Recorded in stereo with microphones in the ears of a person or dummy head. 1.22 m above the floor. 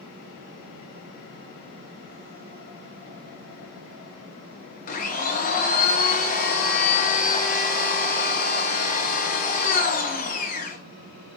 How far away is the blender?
About 0.7 m.